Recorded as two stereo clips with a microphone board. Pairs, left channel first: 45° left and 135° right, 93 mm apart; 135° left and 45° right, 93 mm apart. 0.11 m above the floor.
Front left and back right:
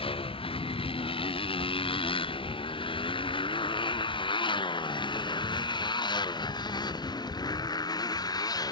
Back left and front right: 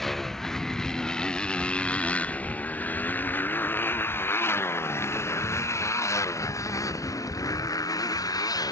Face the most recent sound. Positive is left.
turn(degrees=90)